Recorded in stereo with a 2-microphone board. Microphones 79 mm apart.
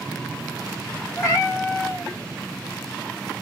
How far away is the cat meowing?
About 1.1 m.